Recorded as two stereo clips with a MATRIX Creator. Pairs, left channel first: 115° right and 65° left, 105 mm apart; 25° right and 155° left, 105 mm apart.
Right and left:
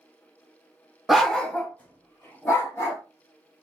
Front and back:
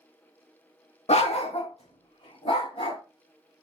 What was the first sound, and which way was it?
A dog barking, 20° right.